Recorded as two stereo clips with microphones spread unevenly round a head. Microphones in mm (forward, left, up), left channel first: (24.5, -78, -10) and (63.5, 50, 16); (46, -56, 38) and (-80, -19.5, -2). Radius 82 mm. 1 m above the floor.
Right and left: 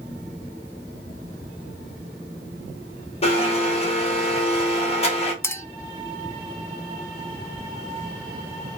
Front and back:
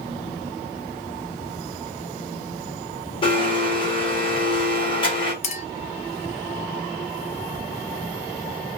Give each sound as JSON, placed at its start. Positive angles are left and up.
{"t": 3.2, "sound": "a blender", "azimuth_deg": -60, "distance_m": 1.5}
{"t": 5.4, "sound": "a clink", "azimuth_deg": -30, "distance_m": 0.6}